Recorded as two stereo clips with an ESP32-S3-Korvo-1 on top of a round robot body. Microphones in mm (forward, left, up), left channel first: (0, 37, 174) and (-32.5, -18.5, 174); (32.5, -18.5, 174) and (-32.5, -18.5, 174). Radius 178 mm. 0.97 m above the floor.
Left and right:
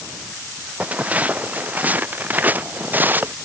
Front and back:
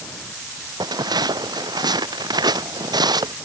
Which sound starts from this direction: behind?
Footsteps, at 0.8 s.